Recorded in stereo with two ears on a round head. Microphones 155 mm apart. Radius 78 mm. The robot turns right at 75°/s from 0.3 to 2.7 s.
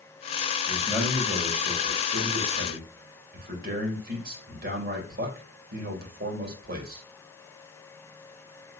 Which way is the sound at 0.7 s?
155° left.